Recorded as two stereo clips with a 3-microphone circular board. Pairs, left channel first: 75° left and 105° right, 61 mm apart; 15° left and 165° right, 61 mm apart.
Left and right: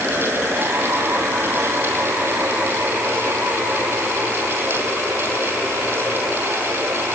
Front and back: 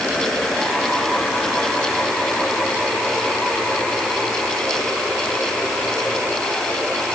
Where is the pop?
I don't hear a pop.